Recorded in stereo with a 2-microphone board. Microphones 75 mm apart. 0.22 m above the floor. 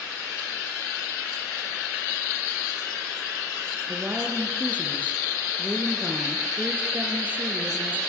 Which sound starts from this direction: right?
A woman speaking, at 3.9 s.